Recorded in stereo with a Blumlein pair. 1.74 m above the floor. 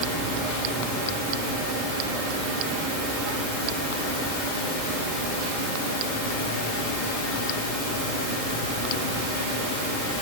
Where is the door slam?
No door slam in this recording.